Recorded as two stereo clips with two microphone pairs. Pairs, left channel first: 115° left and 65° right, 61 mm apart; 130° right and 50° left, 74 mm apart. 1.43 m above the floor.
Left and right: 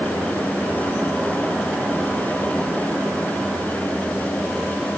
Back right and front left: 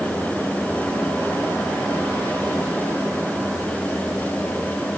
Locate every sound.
Only background noise.